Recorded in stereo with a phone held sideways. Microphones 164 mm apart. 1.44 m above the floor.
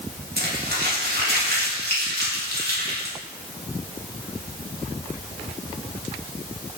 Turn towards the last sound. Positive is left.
turn(degrees=-80)